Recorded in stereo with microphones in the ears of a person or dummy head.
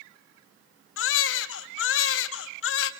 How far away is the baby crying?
About 1.4 m.